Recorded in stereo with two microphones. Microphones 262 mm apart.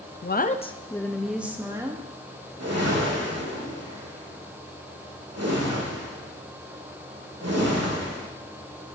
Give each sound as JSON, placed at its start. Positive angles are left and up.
{"t": 0.2, "sound": "a woman speaking", "side_deg": 40, "distance_m": 0.6}
{"t": 2.6, "sound": "a whoosh", "side_deg": -70, "distance_m": 1.9}